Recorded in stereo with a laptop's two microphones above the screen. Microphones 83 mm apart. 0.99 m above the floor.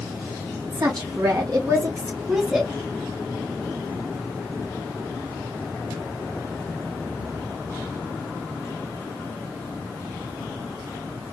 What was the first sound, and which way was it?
A woman speaking, 55° right (ahead or behind).